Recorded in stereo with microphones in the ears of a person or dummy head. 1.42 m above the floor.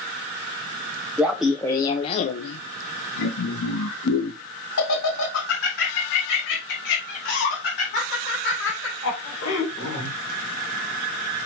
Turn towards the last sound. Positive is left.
turn(degrees=65)  # may be behind; listen again after turning